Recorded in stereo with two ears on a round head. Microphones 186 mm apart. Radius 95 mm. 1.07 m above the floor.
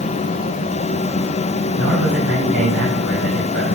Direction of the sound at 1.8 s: 70° right (ahead or behind).